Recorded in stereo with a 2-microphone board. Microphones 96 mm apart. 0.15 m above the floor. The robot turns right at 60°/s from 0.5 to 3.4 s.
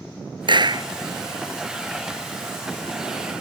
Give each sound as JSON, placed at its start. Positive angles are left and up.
{"t": 0.5, "sound": "a clap", "side_deg": -55}